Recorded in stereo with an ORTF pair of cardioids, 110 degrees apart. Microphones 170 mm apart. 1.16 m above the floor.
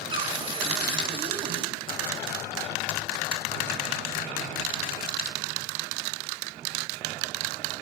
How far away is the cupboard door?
About 2 m.